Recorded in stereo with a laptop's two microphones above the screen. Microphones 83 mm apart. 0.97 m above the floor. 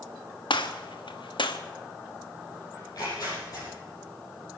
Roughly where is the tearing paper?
Left.